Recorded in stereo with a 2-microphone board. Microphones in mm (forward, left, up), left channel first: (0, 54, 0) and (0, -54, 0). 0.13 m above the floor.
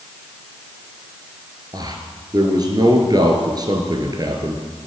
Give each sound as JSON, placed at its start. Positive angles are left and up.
{"t": 1.7, "sound": "a man speaking", "side_deg": -40, "distance_m": 1.7}